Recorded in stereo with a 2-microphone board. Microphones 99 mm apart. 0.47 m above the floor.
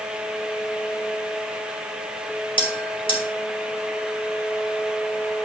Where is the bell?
60° left (ahead or behind), 2.5 m.